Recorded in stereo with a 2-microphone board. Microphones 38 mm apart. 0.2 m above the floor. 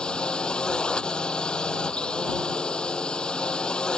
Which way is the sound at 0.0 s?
25° left (ahead or behind).